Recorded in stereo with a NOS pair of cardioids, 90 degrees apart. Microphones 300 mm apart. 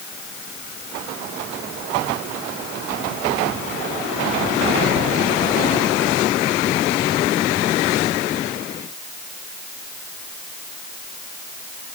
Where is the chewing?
No chewing in this recording.